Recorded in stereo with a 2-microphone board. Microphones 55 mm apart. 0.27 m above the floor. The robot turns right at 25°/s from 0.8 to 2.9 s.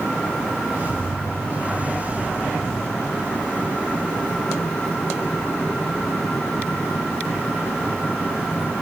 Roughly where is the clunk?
No clunk in this recording.